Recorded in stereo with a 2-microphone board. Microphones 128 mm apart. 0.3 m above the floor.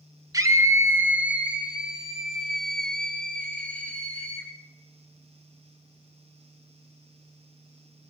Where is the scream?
30° right (ahead or behind), 1.3 m; by 4.5 s 10° left (ahead or behind), 3 m.